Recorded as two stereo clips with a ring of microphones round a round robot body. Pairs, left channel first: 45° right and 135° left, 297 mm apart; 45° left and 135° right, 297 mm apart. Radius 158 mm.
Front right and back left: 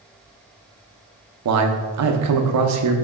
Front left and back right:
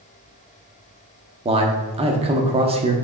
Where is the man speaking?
155° left, 1.0 m.